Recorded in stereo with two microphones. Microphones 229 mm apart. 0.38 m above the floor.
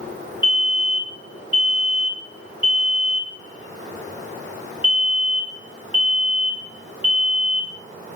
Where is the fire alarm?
20° left (ahead or behind), 1.9 m.